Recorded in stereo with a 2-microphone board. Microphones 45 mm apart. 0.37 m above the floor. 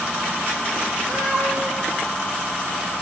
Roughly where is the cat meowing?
Centre.